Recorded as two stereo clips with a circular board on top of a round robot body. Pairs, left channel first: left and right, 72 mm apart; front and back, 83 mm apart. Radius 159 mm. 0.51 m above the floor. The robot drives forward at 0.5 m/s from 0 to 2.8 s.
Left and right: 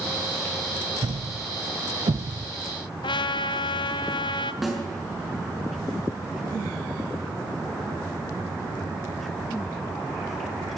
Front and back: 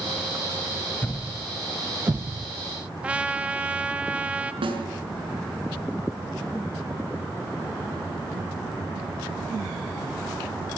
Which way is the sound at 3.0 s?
105° left.